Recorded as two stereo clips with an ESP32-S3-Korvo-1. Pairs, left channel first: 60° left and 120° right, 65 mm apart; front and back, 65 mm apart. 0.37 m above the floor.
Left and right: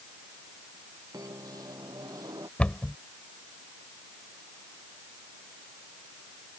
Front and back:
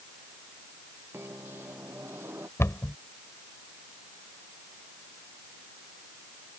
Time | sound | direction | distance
1.1 | a microwave | 125° right | ?
2.6 | a cupboard door | straight ahead | ?